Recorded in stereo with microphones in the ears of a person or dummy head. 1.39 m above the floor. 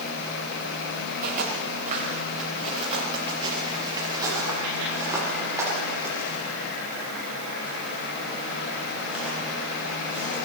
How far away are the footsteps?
About 5.5 m.